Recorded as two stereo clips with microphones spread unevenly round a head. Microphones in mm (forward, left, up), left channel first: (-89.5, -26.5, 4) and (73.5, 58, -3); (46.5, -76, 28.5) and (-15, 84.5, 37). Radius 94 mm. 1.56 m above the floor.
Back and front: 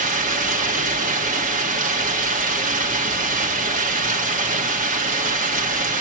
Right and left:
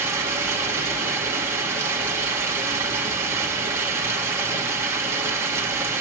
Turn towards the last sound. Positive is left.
turn(degrees=45)